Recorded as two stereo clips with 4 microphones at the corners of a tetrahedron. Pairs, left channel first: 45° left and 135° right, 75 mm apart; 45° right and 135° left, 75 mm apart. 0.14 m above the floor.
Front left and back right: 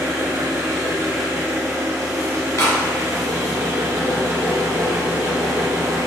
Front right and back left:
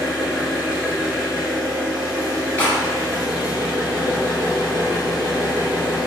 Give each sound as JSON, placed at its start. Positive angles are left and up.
{"t": 0.0, "sound": "an engine running", "azimuth_deg": -160, "distance_m": 1.3}
{"t": 2.6, "sound": "a clap", "azimuth_deg": 15, "distance_m": 1.9}